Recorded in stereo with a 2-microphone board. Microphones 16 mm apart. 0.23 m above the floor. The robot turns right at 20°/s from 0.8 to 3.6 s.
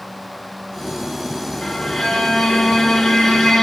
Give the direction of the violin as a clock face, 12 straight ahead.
10 o'clock.